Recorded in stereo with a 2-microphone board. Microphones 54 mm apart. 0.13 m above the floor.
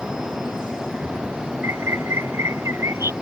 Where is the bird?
55° right (ahead or behind).